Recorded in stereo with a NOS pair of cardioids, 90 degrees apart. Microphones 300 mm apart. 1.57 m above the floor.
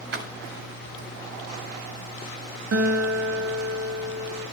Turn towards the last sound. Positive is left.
turn(degrees=-55)